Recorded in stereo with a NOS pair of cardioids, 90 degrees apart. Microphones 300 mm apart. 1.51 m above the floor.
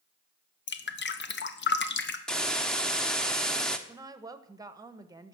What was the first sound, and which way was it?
Dripping, 40° left.